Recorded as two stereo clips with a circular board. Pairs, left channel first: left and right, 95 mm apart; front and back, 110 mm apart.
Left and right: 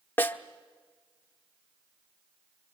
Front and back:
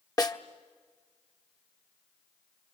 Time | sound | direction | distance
0.2 | a snare drum | 30° left | 1.0 m